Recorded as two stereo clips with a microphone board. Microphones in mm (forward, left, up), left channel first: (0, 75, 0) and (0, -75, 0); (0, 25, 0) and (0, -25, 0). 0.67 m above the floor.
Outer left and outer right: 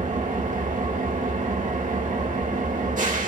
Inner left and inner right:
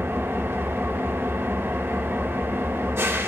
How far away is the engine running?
About 1.5 m.